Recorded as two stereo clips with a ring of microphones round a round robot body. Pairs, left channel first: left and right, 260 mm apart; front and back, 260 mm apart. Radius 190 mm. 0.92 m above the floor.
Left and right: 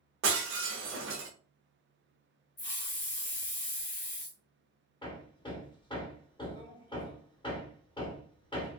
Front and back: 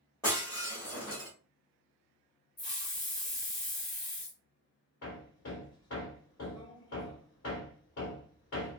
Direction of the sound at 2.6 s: 45° left.